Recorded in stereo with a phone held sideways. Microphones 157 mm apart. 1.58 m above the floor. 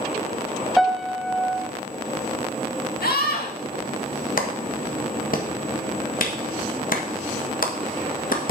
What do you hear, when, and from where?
0.8 s a piano: centre (ahead or behind), 0.8 m
3.0 s a scream: 75° left (ahead or behind), 2.5 m
4.4 s a clap: 65° left (ahead or behind), 1.5 m